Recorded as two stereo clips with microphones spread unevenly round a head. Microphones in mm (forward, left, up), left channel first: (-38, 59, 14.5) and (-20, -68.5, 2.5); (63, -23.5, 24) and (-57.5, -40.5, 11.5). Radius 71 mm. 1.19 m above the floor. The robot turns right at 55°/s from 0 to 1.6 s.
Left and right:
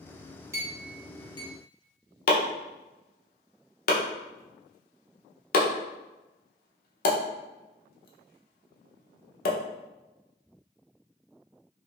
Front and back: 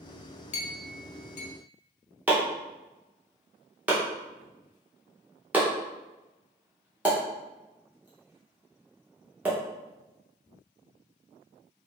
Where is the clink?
10° right, 0.6 m; by 1.5 s 45° left, 0.6 m.